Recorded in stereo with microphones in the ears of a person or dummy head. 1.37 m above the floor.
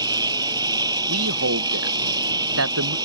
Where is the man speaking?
80° right.